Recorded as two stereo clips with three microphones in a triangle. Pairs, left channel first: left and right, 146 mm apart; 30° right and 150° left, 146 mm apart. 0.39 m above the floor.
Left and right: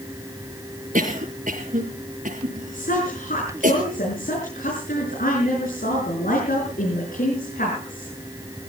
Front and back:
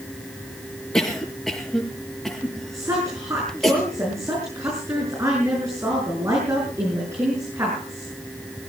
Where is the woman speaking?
80° left, 7 m.